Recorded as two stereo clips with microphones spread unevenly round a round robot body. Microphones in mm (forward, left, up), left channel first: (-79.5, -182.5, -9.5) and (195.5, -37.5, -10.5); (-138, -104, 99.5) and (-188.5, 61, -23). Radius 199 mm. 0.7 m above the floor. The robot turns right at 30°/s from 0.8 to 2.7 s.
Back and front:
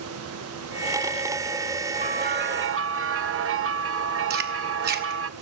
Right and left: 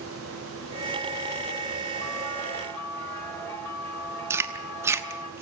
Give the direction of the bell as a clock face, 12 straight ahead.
1 o'clock.